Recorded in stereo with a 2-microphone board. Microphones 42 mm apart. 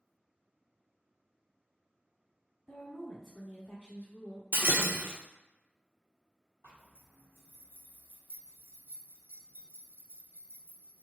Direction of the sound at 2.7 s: 10° right (ahead or behind).